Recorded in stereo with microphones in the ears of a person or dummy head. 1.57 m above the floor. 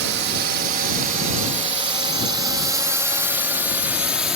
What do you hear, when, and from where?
0.0 s a drone: 60° right (ahead or behind); by 4.4 s 5° right (ahead or behind)